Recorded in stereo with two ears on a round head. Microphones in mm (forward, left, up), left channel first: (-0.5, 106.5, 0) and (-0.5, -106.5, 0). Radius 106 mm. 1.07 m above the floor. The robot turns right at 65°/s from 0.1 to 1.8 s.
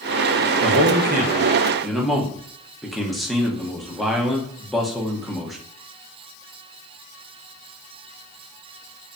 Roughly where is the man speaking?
Right.